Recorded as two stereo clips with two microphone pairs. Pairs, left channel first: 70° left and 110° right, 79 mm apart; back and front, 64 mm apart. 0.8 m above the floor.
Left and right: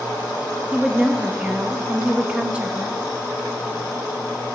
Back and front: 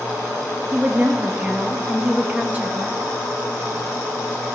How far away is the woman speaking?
About 0.8 m.